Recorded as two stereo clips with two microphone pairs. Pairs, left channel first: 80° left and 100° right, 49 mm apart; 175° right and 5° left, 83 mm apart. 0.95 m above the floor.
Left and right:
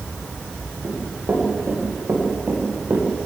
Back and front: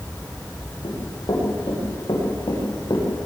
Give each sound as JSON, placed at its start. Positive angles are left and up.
{"t": 0.8, "sound": "running footsteps", "azimuth_deg": -145, "distance_m": 8.5}